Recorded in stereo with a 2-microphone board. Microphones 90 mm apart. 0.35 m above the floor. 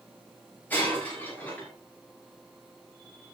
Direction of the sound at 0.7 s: 20° left (ahead or behind).